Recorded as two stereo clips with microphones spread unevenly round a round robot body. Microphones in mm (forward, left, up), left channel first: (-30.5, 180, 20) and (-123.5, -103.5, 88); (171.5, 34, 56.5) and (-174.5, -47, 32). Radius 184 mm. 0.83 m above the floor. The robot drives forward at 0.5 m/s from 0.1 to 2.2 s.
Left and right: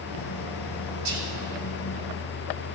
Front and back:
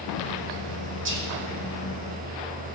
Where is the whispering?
110° right, 4 m; by 1.3 s 115° right, 4 m.